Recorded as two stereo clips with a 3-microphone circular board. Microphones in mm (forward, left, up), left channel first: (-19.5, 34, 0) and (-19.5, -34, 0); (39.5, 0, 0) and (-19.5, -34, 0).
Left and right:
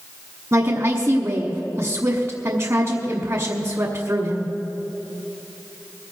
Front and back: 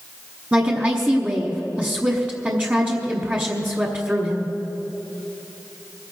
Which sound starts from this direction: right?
A woman speaking, at 0.5 s.